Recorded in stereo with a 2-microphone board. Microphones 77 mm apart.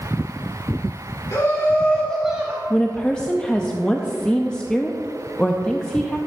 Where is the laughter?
45° left (ahead or behind), 1.9 m; by 2.6 s 35° right (ahead or behind), 1.0 m.